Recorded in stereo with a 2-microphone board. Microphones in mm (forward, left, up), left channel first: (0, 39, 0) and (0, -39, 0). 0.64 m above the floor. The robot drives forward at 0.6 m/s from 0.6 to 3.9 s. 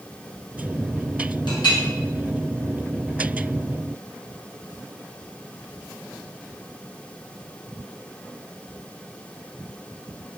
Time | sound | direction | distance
1.5 | a clink | 80° left | 4 m